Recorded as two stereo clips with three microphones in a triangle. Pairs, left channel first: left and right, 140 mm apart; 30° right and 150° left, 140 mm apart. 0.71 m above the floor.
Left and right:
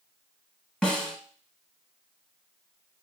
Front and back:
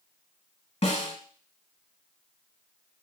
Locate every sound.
0.8 s a snare drum: 5° left, 1.0 m